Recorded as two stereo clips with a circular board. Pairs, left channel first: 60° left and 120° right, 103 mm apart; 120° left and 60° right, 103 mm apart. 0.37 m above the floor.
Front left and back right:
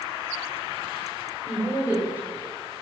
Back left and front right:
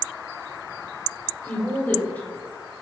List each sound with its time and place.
1.4 s a woman speaking: straight behind, 1.1 m